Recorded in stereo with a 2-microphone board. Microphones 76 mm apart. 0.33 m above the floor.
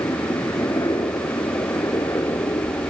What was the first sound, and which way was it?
A helicopter, 60° left (ahead or behind).